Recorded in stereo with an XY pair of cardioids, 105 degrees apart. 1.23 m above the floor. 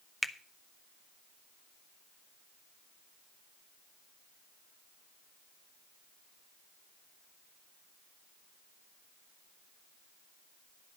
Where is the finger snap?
15° left, 0.7 m.